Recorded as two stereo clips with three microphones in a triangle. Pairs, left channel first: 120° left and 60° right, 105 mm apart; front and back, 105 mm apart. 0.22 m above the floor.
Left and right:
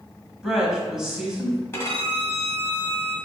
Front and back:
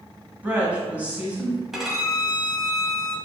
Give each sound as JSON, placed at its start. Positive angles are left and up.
{"t": 0.4, "sound": "a woman speaking", "azimuth_deg": -135, "distance_m": 1.2}
{"t": 1.7, "sound": "a violin", "azimuth_deg": 95, "distance_m": 0.9}